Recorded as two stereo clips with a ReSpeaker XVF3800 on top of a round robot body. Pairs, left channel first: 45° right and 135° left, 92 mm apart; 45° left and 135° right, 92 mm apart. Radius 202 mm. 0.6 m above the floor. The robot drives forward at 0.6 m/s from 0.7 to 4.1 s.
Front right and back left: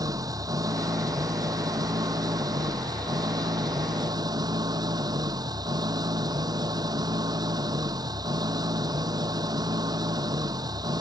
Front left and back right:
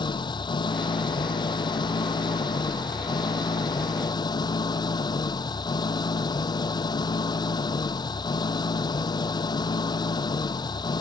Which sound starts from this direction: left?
An engine running, at 0.0 s.